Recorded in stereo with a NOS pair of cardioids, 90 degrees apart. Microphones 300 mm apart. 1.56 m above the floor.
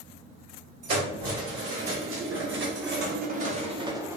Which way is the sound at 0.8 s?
50° right.